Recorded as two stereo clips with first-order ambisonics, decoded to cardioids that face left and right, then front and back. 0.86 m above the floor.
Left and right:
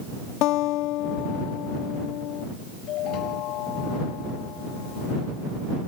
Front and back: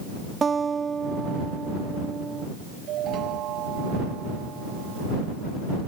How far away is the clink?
I don't hear a clink.